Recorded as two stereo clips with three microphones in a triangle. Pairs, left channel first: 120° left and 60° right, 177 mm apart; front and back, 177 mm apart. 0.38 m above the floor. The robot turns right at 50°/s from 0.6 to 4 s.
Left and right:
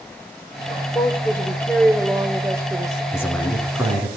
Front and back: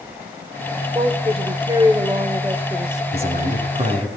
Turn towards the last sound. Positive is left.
turn(degrees=-120)